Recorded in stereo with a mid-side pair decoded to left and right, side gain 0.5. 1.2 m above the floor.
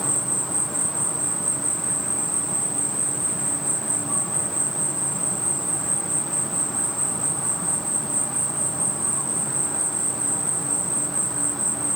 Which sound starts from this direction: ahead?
An insect, at 0.0 s.